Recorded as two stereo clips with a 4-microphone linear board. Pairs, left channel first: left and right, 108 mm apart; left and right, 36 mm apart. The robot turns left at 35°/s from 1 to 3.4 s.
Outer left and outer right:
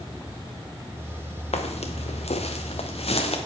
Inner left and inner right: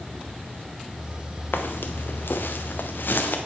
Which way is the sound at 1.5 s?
80° left.